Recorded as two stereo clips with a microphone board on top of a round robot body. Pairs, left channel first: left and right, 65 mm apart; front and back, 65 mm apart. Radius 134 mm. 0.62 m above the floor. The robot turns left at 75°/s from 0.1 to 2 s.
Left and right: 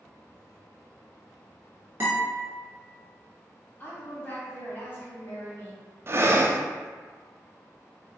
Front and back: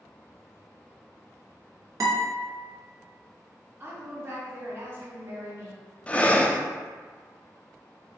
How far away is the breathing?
About 0.7 m.